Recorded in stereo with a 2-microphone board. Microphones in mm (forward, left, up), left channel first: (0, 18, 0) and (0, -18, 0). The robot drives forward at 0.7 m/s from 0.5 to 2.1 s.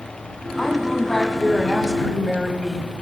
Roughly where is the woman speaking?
Centre.